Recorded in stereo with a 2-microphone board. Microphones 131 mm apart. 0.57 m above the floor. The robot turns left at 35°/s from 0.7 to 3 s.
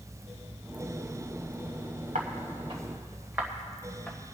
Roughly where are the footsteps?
Right.